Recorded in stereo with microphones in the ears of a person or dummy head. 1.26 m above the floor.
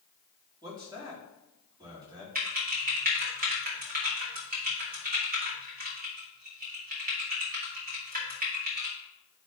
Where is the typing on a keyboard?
45° right (ahead or behind), 2.5 m.